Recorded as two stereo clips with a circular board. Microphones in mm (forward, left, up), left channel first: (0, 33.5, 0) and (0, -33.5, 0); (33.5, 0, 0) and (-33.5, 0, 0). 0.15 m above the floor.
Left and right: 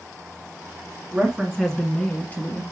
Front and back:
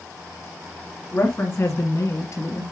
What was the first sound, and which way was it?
A woman speaking, 30° right.